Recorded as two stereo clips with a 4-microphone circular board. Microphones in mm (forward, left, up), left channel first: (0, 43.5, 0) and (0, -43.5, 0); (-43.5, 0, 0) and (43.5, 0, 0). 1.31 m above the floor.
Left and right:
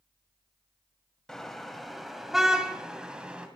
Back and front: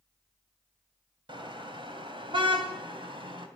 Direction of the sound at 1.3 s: 10° left.